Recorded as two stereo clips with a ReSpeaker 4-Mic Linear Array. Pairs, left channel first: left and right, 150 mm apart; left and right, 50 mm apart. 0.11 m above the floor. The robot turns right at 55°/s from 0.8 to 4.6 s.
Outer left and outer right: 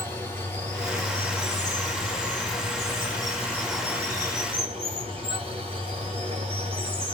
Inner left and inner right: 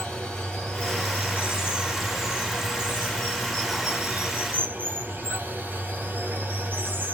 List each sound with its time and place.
0.0 s running water: 15° left, 2 m; by 7.1 s 135° right, 2 m